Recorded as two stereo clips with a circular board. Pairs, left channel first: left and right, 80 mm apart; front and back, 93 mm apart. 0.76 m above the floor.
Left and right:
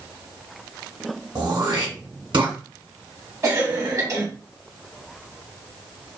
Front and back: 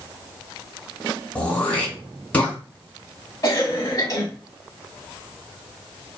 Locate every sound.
1.4 s throat clearing: 75° right, 1.8 m
3.4 s a cough: 45° right, 1.3 m